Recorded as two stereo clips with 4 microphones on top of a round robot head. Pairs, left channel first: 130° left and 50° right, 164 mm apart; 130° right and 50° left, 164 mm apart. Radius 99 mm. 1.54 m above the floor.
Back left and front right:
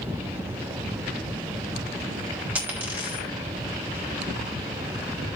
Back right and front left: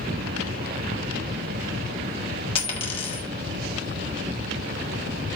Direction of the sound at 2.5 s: 120° right.